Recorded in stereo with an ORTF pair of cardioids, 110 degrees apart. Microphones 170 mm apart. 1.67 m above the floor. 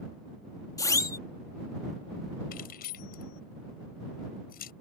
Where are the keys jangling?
60° left.